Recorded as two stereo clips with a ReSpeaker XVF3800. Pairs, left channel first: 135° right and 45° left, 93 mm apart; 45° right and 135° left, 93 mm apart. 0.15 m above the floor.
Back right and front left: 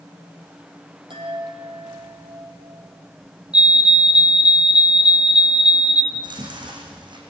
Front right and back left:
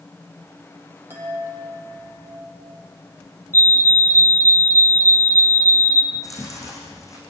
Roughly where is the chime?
Left.